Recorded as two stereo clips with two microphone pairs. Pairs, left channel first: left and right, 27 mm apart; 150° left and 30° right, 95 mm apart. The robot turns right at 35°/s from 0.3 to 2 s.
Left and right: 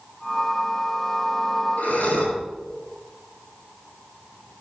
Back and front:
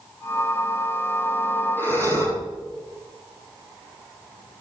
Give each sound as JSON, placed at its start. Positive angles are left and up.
{"t": 1.8, "sound": "breathing", "azimuth_deg": 85, "distance_m": 6.0}